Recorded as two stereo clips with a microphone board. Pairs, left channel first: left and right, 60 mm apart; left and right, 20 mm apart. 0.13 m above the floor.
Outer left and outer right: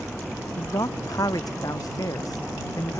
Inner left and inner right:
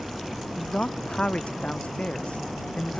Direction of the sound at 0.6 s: 75° left (ahead or behind).